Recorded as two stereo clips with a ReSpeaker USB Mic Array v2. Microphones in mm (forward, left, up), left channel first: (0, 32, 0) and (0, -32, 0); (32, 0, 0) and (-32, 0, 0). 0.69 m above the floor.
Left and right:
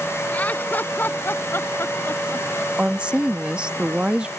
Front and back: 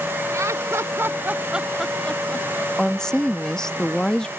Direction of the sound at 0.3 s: 155° left.